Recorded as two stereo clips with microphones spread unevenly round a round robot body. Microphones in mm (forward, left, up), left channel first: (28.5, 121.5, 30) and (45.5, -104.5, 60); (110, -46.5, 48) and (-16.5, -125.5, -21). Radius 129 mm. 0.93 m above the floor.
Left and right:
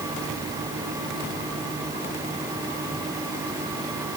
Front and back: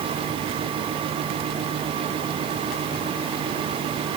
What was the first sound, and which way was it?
Only background noise.